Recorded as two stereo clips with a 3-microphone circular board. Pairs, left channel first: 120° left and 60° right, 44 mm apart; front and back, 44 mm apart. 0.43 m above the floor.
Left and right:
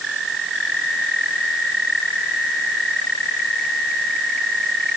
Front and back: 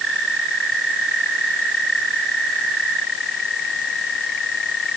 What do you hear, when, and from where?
Only background noise.